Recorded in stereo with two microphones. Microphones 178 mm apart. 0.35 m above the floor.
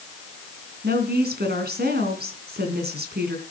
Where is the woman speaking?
65° right (ahead or behind), 3 m.